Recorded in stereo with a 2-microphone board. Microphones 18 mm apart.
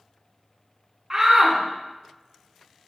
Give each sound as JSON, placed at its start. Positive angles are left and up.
{"t": 1.1, "sound": "a shout", "side_deg": -25, "distance_m": 1.1}